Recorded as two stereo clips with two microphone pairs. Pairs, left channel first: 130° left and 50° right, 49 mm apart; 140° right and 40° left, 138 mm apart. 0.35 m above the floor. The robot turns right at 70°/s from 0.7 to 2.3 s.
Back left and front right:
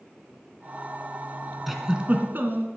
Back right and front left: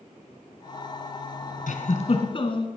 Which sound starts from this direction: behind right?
A giggle, at 1.7 s.